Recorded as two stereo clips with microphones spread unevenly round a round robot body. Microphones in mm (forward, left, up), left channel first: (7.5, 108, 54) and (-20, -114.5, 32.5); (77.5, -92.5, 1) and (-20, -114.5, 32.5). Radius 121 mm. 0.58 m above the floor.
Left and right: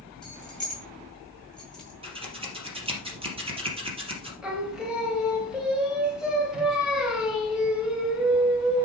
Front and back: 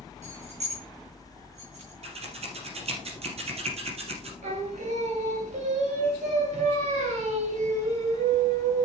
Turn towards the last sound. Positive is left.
turn(degrees=175)